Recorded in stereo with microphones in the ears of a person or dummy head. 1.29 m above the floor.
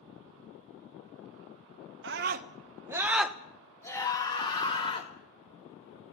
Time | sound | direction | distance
2.0 | a scream | 60° right (ahead or behind) | 1.5 m